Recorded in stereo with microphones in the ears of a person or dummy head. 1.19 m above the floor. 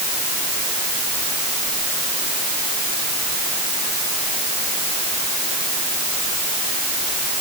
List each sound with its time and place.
Only background noise.